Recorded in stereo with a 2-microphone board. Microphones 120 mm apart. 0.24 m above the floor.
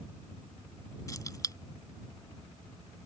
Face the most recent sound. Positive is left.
turn(degrees=30)  # may be behind; listen again after turning